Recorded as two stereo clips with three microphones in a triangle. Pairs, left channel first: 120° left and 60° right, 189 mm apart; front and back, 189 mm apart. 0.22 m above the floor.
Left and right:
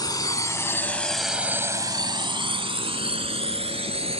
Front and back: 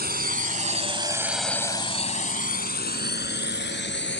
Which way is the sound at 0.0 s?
175° right.